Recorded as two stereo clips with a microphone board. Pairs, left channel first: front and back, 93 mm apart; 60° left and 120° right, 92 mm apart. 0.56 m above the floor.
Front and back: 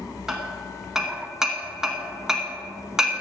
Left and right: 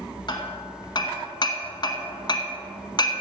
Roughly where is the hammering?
Left.